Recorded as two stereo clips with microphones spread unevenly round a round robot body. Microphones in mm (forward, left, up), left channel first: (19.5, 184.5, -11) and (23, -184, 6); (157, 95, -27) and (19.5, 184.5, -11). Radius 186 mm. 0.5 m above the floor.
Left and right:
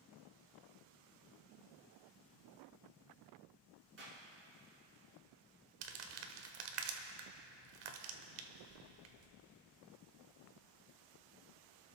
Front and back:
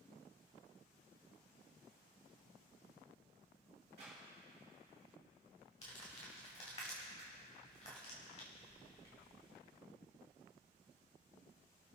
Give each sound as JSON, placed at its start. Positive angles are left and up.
{"t": 4.0, "sound": "a clap", "azimuth_deg": -145, "distance_m": 5.5}
{"t": 5.8, "sound": "crumpling", "azimuth_deg": -100, "distance_m": 1.4}